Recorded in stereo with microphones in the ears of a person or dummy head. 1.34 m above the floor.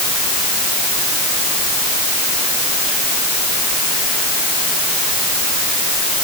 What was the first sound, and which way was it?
Only background noise.